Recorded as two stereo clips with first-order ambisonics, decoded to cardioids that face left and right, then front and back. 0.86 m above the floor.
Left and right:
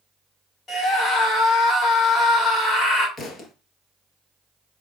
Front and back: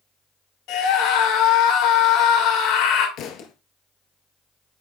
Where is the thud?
30° left, 1.3 m.